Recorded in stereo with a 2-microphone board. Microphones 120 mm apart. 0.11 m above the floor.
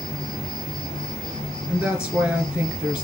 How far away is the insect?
About 1.5 m.